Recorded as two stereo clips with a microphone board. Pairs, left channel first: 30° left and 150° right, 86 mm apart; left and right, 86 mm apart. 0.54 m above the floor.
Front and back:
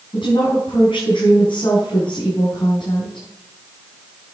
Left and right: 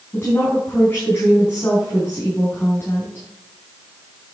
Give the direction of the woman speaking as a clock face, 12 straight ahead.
11 o'clock.